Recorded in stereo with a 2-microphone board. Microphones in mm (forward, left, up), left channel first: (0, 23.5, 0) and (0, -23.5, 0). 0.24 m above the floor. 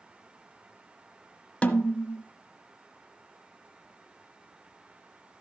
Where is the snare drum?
25° left (ahead or behind), 0.9 m.